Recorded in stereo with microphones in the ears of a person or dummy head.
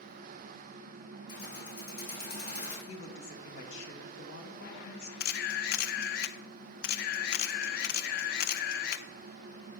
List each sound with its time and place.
1.3 s keys jangling: 60° left (ahead or behind), 3 m
2.9 s a woman speaking: 80° left, 1.7 m
5.2 s a camera shutter: 65° left (ahead or behind), 0.6 m